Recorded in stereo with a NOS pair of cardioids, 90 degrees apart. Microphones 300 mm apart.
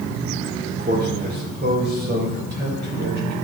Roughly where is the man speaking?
Ahead right.